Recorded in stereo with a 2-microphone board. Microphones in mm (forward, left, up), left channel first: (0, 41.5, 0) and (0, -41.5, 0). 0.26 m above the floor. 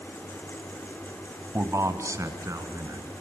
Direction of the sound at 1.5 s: 30° right (ahead or behind).